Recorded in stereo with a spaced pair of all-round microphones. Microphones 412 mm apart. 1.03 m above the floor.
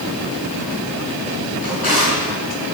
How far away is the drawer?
About 8 m.